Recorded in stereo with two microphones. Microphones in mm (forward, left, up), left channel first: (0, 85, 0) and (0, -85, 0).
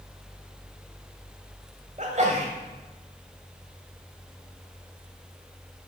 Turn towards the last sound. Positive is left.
turn(degrees=-45)  # may be behind; listen again after turning